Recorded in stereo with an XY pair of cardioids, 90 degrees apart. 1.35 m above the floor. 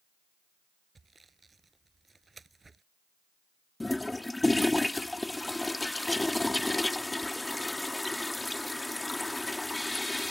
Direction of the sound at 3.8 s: 15° left.